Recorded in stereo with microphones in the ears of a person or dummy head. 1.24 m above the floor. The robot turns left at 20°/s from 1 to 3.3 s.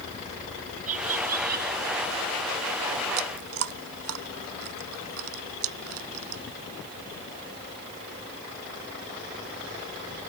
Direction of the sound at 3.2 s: 75° right (ahead or behind).